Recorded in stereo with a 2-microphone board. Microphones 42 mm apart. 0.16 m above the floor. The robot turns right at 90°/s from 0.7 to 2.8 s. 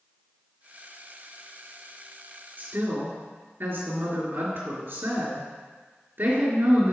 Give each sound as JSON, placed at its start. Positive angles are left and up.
{"t": 2.6, "sound": "a woman speaking", "side_deg": -45, "distance_m": 3.0}